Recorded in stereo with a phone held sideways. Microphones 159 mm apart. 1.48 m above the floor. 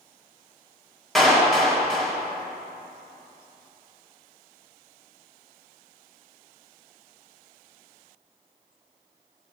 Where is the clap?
Centre (ahead or behind), 2 m.